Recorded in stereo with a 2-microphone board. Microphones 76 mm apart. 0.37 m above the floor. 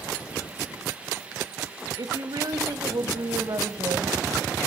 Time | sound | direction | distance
2.0 | a woman speaking | 60° right (ahead or behind) | 1.7 m